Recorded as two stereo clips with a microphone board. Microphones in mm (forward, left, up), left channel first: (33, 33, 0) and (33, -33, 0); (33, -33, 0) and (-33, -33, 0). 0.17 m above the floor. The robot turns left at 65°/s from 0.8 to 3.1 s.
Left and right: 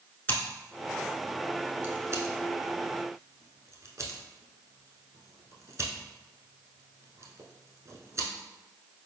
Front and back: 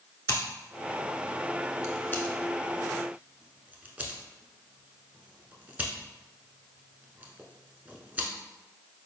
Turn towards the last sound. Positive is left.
turn(degrees=-120)